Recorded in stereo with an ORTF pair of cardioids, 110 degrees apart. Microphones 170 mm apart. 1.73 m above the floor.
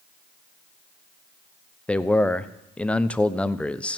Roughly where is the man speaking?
Ahead.